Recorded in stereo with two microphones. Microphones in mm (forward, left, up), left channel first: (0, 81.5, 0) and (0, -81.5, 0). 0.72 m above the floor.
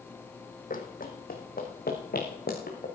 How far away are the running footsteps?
About 1.9 m.